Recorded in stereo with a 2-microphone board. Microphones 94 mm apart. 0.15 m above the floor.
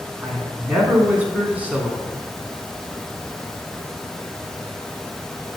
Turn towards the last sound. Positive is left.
turn(degrees=-15)  # may be behind; listen again after turning